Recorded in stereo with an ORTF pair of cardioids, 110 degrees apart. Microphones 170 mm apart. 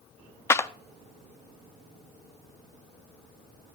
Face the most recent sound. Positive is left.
turn(degrees=15)